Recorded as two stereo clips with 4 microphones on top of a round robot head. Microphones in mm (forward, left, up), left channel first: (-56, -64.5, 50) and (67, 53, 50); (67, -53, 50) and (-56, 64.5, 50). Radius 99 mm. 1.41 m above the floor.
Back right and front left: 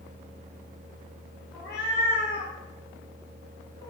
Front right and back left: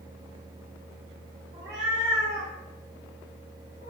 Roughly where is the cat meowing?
Behind.